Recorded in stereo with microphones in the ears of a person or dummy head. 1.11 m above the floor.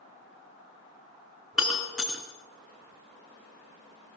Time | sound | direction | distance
1.5 | breaking glass | 5° right (ahead or behind) | 4 m